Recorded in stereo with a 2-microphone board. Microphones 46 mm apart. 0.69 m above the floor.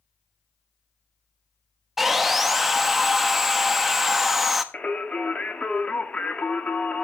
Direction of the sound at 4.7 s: 30° left (ahead or behind).